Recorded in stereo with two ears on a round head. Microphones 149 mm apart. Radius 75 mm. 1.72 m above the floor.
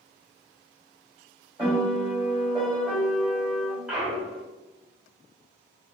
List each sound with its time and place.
1.6 s a piano: 10° right (ahead or behind), 1.9 m
3.9 s a clunk: 5° right (ahead or behind), 1.2 m